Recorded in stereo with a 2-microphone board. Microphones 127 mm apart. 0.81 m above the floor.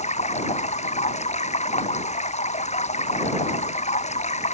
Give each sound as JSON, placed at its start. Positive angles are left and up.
{"t": 0.0, "sound": "running water", "side_deg": 75}